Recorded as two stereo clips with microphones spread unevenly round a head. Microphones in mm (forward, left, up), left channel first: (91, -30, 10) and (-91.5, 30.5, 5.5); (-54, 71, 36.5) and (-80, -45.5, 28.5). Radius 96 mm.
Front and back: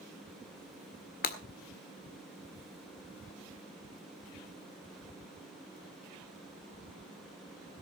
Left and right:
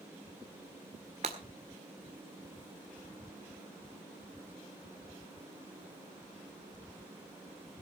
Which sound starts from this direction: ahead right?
Breaking glass, at 1.2 s.